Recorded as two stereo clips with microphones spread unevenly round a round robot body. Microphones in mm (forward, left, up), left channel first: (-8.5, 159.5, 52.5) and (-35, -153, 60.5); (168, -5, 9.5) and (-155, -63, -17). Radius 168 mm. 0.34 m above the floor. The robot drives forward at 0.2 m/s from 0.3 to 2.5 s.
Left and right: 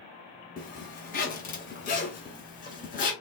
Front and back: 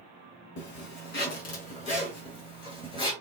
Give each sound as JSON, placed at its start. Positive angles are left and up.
{"t": 0.6, "sound": "a zipper", "azimuth_deg": 45, "distance_m": 1.2}